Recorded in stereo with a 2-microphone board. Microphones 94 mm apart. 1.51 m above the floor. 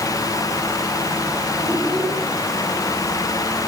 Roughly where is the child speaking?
Centre.